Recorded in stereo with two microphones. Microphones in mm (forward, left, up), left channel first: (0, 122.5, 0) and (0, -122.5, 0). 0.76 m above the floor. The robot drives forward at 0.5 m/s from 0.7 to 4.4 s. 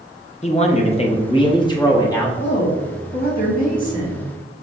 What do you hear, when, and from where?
0.4 s a man speaking: 30° left (ahead or behind), 0.6 m; by 2.3 s 15° left (ahead or behind), 1.1 m
2.4 s a woman speaking: 50° left (ahead or behind), 1.2 m; by 4.3 s 30° left (ahead or behind), 1.8 m